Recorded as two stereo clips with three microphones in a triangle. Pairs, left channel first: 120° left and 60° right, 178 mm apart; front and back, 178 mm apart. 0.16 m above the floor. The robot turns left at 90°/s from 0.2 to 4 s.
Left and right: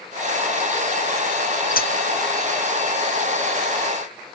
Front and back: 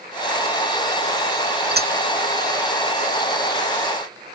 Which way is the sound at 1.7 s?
160° left.